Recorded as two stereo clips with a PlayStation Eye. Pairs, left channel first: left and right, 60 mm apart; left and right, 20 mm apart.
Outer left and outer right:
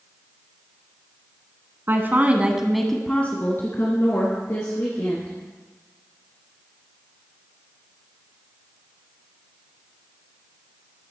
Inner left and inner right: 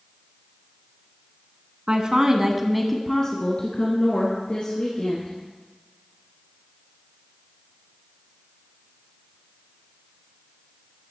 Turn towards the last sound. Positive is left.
turn(degrees=55)  # may be behind; listen again after turning